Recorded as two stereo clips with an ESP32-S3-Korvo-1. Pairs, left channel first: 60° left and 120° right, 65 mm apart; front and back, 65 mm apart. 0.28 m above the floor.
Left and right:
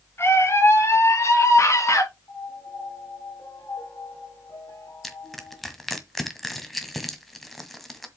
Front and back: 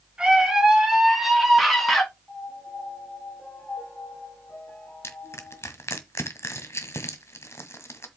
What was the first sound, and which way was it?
A scream, 105° left.